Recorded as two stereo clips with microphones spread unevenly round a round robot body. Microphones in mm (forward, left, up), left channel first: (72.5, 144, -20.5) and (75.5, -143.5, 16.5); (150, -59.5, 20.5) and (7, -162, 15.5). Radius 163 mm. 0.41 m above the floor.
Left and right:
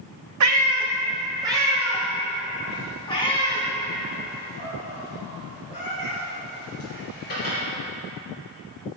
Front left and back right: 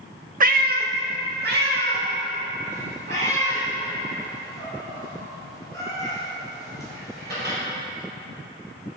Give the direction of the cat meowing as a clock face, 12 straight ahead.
4 o'clock.